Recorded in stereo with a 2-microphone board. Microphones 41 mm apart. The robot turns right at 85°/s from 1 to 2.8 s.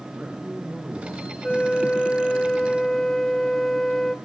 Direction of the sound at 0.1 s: 20° right (ahead or behind).